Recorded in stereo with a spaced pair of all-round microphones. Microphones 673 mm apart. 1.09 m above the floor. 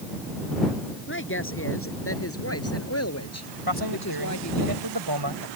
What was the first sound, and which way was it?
A woman speaking, 15° left (ahead or behind).